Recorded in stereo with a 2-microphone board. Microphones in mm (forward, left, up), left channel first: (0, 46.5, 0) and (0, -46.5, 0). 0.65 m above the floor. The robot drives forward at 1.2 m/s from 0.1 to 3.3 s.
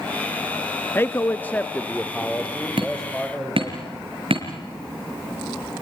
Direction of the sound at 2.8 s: 60° right (ahead or behind).